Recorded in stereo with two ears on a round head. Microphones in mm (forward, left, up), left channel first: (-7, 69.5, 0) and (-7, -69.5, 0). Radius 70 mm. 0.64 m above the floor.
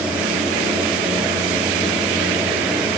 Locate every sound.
Only background noise.